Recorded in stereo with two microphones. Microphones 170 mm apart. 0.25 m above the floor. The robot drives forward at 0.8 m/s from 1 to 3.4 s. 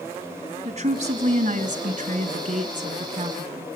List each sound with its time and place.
0.7 s a woman speaking: 45° right (ahead or behind), 2 m